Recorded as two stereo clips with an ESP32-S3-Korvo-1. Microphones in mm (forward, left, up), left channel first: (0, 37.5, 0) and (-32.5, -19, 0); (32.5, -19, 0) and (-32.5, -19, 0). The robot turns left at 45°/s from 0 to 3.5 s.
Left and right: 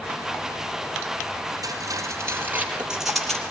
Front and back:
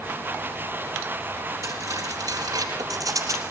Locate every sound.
1.6 s cutlery clinking: 140° right, 3.5 m; by 3.4 s 140° left, 3.5 m